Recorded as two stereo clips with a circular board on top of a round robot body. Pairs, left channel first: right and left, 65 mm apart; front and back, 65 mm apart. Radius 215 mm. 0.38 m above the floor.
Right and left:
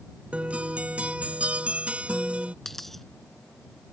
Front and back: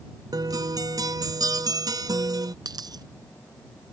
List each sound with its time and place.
0.3 s a guitar: 160° left
2.6 s a dropped coin: 175° right